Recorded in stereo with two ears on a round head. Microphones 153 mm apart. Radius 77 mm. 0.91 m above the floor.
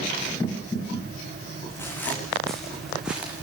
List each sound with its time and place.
1.7 s footsteps: 15° left (ahead or behind), 4 m; by 3.4 s 10° right (ahead or behind), 4 m